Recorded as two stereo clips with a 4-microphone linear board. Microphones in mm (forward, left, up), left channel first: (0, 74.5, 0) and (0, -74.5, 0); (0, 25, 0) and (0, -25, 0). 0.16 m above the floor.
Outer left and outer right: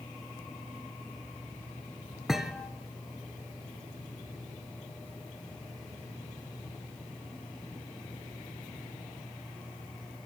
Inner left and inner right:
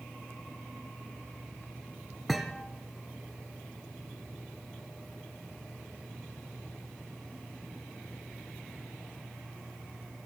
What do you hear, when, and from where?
2.3 s a thud: centre (ahead or behind), 1.4 m